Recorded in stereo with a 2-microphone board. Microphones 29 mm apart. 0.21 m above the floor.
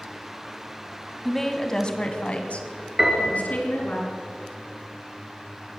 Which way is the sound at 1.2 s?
5° left (ahead or behind).